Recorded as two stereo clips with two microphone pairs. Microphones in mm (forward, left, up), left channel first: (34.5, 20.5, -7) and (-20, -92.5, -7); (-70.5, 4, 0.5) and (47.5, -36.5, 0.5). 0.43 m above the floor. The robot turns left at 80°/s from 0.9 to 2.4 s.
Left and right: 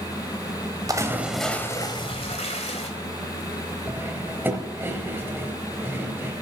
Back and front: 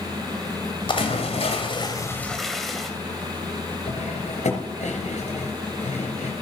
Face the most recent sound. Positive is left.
turn(degrees=170)